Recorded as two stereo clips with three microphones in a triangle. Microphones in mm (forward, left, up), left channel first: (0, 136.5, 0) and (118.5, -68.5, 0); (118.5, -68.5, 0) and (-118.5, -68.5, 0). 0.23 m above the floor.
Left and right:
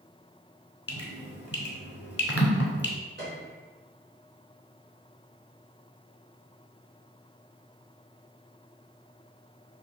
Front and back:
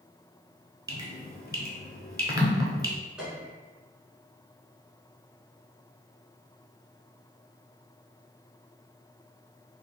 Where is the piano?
95° right, 1.3 m.